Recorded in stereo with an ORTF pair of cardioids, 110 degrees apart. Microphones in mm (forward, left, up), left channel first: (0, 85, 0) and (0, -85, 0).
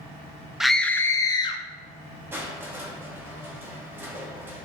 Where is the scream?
5° right, 0.9 m; by 1.6 s 30° left, 1.4 m.